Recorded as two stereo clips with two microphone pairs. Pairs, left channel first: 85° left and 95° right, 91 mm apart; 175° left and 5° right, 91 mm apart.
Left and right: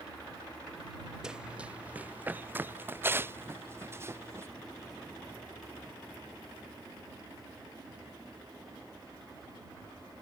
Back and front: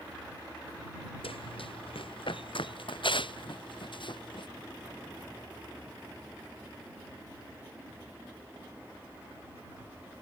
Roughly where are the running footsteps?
Behind.